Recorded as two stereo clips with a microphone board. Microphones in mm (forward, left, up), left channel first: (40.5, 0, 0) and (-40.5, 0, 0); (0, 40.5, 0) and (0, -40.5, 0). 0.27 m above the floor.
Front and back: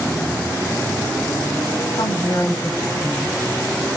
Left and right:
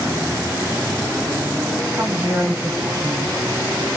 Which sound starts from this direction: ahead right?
A woman speaking, at 1.9 s.